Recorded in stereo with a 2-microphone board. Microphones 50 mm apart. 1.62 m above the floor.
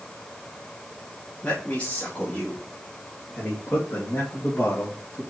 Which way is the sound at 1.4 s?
25° left (ahead or behind).